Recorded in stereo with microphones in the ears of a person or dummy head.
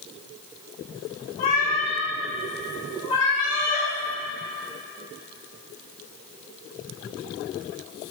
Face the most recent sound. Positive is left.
turn(degrees=20)  # may be behind; listen again after turning